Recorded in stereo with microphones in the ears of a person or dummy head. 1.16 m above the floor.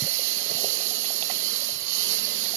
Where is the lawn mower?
70° right (ahead or behind).